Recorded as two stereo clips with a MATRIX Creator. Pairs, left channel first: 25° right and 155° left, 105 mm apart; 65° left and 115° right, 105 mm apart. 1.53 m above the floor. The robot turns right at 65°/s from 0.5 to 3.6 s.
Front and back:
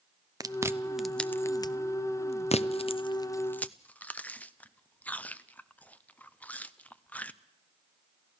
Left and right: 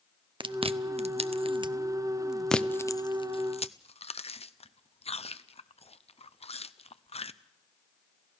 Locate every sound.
0.4 s chewing: 150° right, 0.6 m; by 7.3 s 55° left, 0.6 m